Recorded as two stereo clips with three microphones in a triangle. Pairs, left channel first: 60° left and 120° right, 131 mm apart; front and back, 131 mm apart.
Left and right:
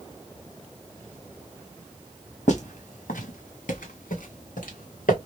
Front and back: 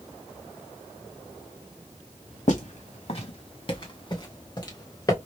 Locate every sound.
2.5 s footsteps: 30° left, 1.6 m; by 5.2 s 65° left, 3 m